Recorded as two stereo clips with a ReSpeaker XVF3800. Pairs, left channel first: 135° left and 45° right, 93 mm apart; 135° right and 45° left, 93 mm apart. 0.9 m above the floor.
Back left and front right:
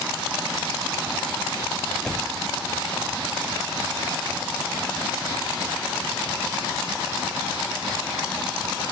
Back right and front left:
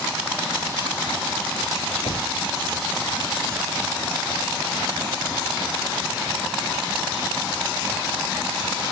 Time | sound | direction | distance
2.0 | a door slam | 145° right | ?